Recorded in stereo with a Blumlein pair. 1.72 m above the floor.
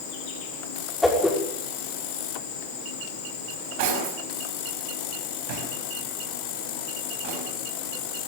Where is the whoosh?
5° left, 6 m.